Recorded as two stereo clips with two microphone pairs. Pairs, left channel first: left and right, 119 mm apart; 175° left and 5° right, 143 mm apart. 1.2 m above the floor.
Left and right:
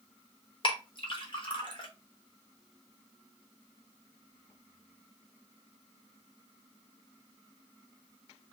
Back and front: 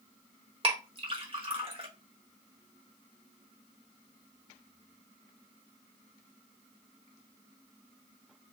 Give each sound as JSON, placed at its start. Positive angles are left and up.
{"t": 0.6, "sound": "a clink", "azimuth_deg": 45, "distance_m": 1.1}